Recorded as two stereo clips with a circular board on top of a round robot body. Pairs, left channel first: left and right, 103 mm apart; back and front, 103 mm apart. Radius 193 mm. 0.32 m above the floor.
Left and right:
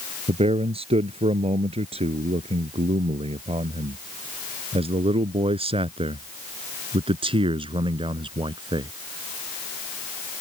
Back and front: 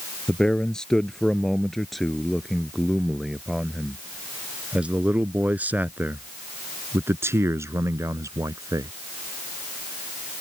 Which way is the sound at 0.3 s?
95° right.